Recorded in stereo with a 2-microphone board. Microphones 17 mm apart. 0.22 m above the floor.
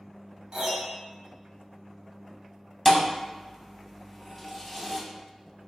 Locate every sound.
0.5 s a piano: 50° right (ahead or behind), 1.1 m
2.9 s a thud: 5° right (ahead or behind), 0.6 m